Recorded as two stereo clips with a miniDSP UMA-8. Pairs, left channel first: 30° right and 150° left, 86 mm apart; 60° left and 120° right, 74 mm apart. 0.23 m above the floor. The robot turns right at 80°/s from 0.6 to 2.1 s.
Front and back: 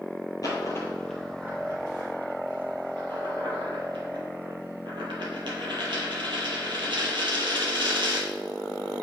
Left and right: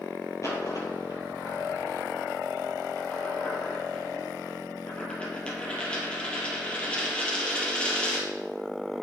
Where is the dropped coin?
15° left, 2.5 m; by 8.3 s 135° left, 2.5 m.